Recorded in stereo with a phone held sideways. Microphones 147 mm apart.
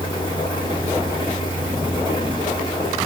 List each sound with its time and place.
0.0 s a fan: 30° left (ahead or behind), 2 m